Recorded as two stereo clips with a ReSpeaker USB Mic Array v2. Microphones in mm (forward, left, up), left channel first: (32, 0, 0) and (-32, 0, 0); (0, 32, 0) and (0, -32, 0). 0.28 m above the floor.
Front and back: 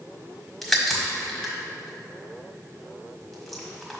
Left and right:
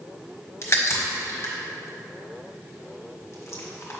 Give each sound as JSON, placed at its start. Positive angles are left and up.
{"t": 0.6, "sound": "a crack", "azimuth_deg": 85, "distance_m": 1.3}